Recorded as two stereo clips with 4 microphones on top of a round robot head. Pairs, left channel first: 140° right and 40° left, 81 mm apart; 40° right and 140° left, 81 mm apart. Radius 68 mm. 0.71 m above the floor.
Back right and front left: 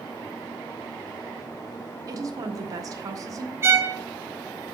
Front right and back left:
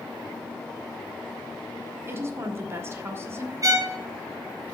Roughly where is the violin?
Left.